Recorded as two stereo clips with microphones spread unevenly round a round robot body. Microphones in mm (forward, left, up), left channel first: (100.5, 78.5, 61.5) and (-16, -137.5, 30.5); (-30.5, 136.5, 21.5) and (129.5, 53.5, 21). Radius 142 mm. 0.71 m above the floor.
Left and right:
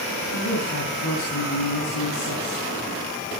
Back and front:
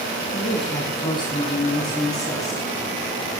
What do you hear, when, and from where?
0.3 s a woman speaking: 95° left, 6 m; by 2.7 s 80° left, 6.5 m